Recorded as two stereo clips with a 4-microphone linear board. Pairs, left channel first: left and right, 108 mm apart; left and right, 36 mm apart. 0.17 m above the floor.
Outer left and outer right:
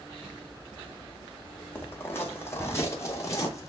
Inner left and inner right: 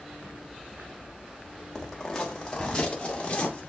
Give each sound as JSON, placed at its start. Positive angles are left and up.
{"t": 1.8, "sound": "footsteps", "side_deg": 20, "distance_m": 4.5}